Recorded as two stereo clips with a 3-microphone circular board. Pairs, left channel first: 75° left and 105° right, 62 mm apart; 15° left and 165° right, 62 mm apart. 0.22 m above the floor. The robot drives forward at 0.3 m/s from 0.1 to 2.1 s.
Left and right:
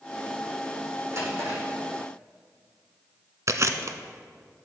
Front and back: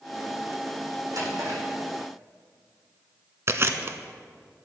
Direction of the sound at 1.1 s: 150° right.